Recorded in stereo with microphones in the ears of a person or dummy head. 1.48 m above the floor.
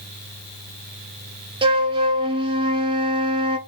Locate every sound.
1.6 s a flute: 25° right (ahead or behind), 0.6 m